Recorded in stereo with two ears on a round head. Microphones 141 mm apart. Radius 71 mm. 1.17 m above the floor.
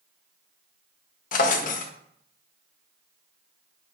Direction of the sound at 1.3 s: 55° left (ahead or behind).